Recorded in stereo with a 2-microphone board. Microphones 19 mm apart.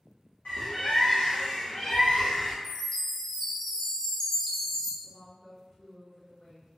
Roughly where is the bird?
Left.